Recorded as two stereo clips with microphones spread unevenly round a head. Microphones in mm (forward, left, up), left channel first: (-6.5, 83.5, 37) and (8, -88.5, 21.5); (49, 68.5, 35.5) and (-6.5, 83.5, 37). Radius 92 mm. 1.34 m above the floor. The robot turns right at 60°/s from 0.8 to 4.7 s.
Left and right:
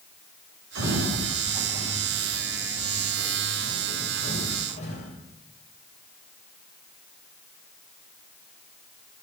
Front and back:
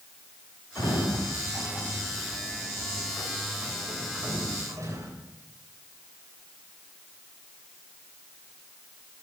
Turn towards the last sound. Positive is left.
turn(degrees=145)